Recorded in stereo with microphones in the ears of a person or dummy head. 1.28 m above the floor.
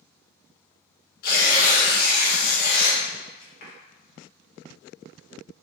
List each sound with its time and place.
1.2 s tearing paper: 60° left (ahead or behind), 1.4 m